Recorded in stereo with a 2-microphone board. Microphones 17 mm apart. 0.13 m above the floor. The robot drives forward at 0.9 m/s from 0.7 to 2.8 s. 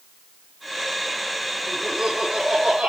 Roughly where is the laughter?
Right.